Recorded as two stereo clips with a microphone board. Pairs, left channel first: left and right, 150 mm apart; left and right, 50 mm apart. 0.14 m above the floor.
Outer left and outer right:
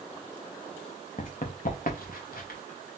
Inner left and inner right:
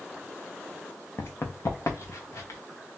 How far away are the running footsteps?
About 0.9 m.